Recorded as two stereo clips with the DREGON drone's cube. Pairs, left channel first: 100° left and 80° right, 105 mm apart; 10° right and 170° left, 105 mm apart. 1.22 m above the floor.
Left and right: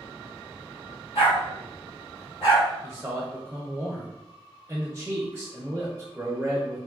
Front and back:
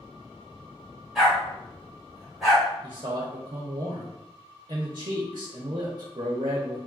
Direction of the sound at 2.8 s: 155° right.